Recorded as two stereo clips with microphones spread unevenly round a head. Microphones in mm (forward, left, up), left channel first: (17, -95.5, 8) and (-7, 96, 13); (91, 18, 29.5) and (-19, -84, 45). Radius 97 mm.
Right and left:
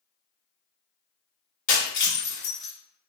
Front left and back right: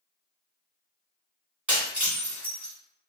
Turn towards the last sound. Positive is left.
turn(degrees=-70)